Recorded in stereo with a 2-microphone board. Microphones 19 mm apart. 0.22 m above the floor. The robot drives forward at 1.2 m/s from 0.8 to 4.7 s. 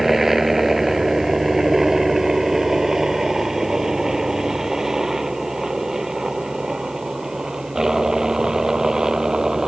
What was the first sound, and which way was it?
A helicopter, 15° right (ahead or behind).